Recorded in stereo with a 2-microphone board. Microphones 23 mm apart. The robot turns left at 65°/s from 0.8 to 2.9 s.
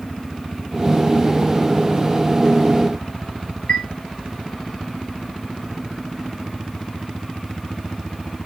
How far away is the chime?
About 1.8 m.